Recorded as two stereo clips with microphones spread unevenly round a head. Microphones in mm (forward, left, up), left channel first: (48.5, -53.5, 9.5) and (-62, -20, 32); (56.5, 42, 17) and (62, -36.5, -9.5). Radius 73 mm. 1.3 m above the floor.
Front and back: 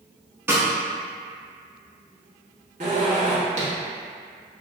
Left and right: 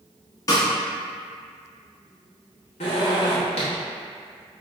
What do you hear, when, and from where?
0.5 s a snare drum: 100° left, 1.0 m
2.8 s a zipper: 115° left, 1.1 m